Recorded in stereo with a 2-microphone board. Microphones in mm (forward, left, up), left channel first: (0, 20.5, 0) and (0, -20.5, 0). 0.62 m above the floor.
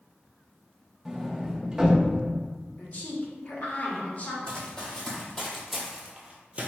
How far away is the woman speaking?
About 0.8 m.